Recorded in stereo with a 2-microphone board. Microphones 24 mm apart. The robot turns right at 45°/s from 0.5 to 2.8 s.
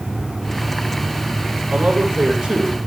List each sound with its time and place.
1.7 s a man speaking: 75° right, 10 m; by 2.8 s 25° right, 10 m